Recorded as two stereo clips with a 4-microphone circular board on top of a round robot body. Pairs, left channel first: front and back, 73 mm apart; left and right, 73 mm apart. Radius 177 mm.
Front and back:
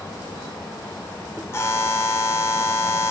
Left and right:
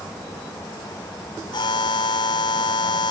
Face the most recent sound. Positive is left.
turn(degrees=60)